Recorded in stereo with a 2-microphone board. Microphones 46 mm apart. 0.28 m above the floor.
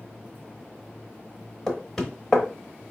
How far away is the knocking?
About 0.9 m.